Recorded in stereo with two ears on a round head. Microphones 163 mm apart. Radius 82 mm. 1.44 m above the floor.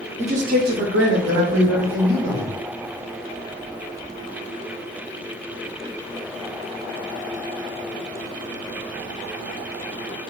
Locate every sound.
0.2 s a man speaking: 35° right (ahead or behind), 0.6 m; by 2.5 s 70° right (ahead or behind), 1.3 m